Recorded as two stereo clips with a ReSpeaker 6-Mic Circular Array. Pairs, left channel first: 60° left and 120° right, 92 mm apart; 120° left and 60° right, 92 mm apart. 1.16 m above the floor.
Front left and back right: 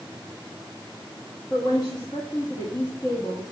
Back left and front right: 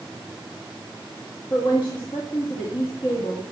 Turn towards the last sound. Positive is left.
turn(degrees=95)